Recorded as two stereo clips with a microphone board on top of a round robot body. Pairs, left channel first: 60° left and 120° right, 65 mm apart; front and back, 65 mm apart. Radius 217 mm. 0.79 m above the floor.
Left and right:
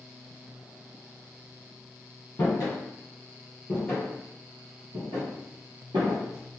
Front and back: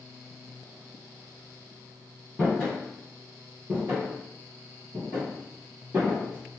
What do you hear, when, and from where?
2.4 s footsteps: 95° left, 1.3 m; by 6.6 s 115° right, 1.3 m